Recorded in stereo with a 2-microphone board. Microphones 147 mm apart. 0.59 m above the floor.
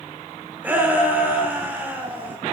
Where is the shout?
10° right (ahead or behind), 1.4 m.